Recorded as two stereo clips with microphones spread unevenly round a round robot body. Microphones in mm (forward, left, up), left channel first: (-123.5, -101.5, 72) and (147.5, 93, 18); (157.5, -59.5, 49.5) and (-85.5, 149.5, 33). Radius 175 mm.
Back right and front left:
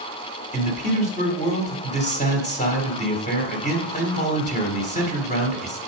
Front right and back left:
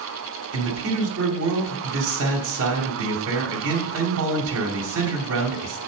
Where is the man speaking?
145° left, 1.7 m.